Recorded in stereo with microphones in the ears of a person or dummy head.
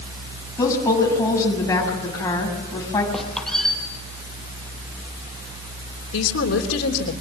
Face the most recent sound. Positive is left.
turn(degrees=85)